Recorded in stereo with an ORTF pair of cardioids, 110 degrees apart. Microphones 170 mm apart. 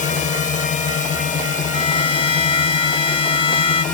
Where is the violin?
30° left.